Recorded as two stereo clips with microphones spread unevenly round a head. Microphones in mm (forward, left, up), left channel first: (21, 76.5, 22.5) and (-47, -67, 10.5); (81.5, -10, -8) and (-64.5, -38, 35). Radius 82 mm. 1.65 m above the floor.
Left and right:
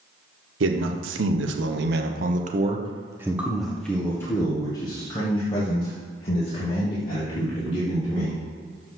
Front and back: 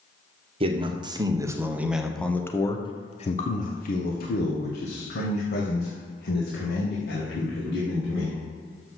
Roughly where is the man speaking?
Behind right.